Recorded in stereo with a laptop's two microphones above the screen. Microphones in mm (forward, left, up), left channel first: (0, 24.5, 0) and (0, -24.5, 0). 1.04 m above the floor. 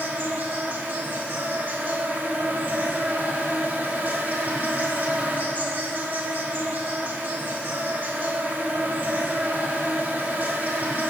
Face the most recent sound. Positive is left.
turn(degrees=-45)  # may be behind; listen again after turning